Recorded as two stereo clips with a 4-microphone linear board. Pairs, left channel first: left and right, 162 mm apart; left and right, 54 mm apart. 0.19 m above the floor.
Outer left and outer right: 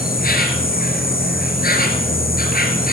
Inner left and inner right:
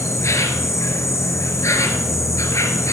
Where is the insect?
70° left (ahead or behind), 2 m.